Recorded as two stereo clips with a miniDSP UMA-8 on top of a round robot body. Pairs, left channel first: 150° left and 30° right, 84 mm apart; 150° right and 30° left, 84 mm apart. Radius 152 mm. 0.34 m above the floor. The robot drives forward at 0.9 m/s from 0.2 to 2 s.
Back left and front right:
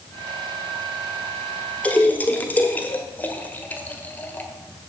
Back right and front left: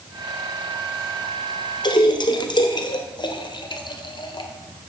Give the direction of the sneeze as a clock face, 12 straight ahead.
I don't hear a sneeze.